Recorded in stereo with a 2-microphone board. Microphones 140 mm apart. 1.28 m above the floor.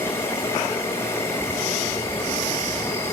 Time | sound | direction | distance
0.0 | an insect | 20° left (ahead or behind) | 6 m